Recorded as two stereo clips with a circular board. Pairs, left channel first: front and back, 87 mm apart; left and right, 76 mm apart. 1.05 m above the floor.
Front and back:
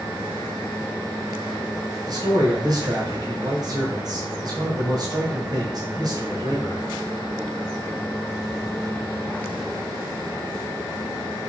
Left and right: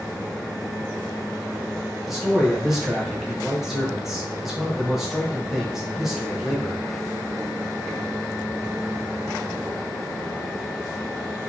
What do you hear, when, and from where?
2.1 s a man speaking: 175° right, 0.9 m